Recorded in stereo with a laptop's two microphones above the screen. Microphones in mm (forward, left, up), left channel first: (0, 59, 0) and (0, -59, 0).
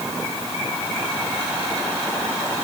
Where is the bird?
I don't hear a bird.